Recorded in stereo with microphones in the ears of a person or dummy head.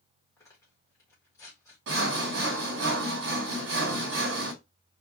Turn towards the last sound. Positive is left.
turn(degrees=-60)  # may be behind; listen again after turning